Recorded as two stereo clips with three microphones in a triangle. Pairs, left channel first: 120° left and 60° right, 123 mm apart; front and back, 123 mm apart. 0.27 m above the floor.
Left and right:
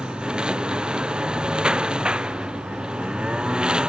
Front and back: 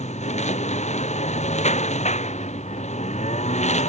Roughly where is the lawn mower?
Ahead left.